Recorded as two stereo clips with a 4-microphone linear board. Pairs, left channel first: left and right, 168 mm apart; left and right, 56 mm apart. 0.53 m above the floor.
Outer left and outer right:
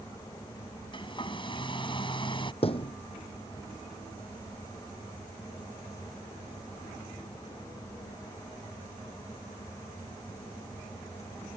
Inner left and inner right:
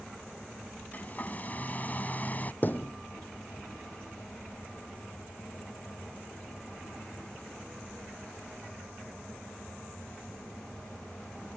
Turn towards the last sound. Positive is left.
turn(degrees=40)  # may be behind; listen again after turning